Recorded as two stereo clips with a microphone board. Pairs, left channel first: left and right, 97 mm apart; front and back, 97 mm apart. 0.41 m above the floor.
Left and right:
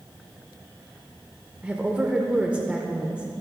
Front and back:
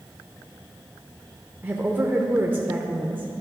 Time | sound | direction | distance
1.6 | a woman speaking | 150° right | 0.8 m